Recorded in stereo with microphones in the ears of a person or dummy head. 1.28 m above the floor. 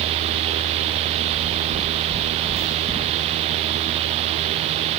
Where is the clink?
No clink in this recording.